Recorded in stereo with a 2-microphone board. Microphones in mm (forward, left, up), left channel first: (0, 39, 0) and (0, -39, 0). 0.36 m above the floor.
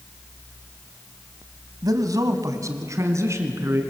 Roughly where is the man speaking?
Right.